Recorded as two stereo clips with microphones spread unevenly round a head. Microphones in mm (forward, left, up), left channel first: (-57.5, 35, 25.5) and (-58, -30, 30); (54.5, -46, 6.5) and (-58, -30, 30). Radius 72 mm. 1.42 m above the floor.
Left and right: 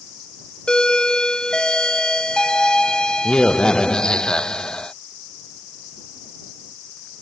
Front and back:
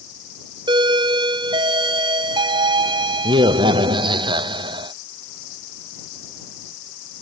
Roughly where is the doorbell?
Behind left.